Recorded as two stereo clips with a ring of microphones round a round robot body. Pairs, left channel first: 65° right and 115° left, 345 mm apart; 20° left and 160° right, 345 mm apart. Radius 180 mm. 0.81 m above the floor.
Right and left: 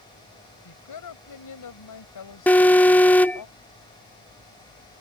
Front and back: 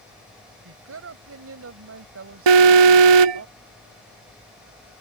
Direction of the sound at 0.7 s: 105° right.